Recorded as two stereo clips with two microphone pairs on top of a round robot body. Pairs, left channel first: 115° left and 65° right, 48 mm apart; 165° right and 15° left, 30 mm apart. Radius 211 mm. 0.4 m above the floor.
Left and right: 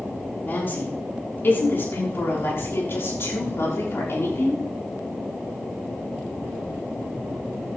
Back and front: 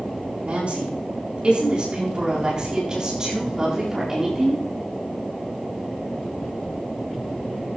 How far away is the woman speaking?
About 6.5 m.